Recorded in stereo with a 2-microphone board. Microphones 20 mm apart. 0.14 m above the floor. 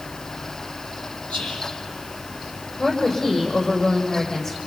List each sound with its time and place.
1.3 s whispering: 65° left (ahead or behind), 4.5 m
2.8 s a woman speaking: 30° left (ahead or behind), 6.5 m